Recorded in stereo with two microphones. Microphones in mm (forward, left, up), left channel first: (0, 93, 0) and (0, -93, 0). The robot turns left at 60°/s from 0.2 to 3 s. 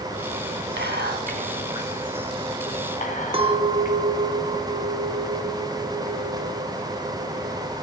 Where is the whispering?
70° right (ahead or behind), 2.5 m; by 4.0 s 45° left (ahead or behind), 2.5 m.